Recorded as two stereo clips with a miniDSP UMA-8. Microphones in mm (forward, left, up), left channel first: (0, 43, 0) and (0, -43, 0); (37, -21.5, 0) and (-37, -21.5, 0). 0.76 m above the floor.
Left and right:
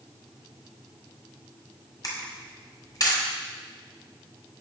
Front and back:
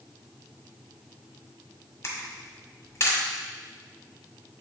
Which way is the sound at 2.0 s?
50° left.